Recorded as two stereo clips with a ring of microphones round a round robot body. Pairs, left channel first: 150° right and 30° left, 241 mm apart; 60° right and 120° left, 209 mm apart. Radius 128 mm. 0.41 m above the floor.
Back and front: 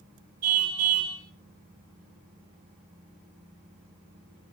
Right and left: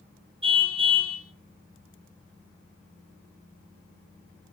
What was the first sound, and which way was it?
A car horn, 55° left.